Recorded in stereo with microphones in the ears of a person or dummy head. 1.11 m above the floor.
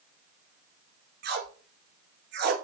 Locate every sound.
1.2 s tape being pulled: 55° right (ahead or behind), 2.0 m